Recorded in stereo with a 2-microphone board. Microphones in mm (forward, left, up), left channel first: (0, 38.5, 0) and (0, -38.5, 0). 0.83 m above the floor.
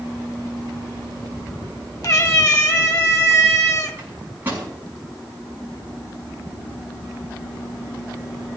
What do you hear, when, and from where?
2.0 s a cat meowing: 45° left (ahead or behind), 1.3 m
4.0 s a microwave: 25° right (ahead or behind), 6 m